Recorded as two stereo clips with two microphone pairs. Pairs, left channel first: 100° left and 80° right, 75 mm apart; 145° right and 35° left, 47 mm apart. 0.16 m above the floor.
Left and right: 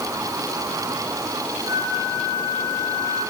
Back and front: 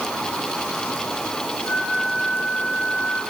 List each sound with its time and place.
1.6 s a flute: 90° right, 10 m